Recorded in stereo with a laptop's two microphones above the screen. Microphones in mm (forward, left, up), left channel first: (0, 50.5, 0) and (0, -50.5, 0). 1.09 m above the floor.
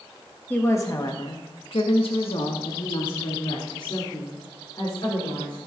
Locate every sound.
0.5 s a woman speaking: 20° left (ahead or behind), 1.1 m; by 5.6 s 50° left (ahead or behind), 4 m